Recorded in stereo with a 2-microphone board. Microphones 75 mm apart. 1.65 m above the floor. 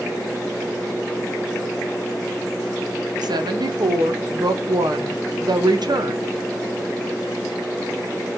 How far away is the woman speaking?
About 0.6 m.